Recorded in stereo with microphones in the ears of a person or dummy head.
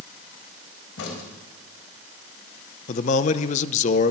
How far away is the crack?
About 3.5 m.